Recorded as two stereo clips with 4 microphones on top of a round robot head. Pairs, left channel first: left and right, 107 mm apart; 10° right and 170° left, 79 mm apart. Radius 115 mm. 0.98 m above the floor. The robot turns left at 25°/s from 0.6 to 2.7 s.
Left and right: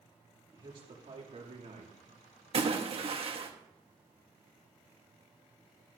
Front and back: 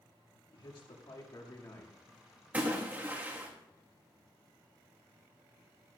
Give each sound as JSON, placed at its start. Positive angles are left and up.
{"t": 0.5, "sound": "a man speaking", "azimuth_deg": -40, "distance_m": 2.0}
{"t": 2.5, "sound": "a splash", "azimuth_deg": -115, "distance_m": 1.5}